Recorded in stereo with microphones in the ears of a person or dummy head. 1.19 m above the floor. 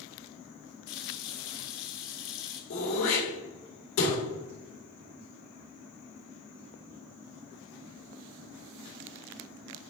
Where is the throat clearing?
80° left, 3.5 m.